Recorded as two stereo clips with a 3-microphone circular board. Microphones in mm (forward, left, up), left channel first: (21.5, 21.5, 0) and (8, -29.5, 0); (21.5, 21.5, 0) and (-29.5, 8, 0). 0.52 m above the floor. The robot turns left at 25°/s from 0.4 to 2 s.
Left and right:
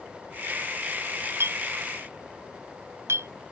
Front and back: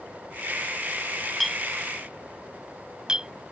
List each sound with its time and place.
1.4 s a clink: 75° right; by 3.3 s 90° right